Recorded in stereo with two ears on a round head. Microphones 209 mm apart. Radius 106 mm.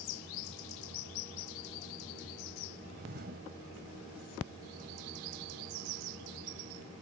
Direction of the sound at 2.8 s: 45° right (ahead or behind).